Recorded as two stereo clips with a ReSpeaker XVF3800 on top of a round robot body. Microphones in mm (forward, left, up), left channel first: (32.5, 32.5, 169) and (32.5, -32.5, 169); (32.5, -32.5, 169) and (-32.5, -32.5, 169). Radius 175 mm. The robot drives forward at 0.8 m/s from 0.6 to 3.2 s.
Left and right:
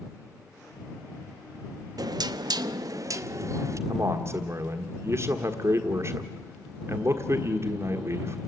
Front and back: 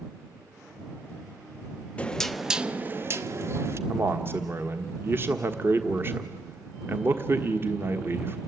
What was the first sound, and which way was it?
Knocking, 70° right.